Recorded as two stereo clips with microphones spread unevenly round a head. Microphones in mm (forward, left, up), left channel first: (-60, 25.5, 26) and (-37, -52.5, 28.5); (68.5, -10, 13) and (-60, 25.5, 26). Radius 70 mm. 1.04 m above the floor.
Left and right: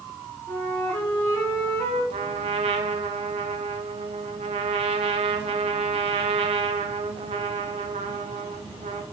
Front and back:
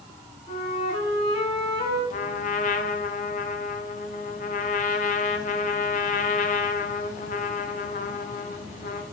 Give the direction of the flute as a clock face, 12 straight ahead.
11 o'clock.